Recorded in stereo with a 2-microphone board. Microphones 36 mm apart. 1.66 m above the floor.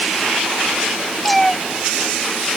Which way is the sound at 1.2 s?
5° left (ahead or behind).